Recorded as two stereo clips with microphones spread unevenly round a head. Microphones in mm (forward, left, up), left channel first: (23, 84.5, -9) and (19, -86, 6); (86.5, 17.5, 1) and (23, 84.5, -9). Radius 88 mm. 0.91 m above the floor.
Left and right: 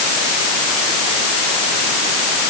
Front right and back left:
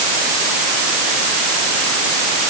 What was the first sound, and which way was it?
Only background noise.